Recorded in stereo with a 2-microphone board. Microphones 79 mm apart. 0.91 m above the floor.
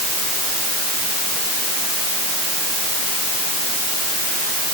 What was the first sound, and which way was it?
Only background noise.